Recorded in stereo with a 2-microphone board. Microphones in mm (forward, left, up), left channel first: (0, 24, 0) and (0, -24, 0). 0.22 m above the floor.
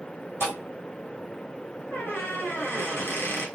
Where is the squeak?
50° left (ahead or behind), 1.1 m.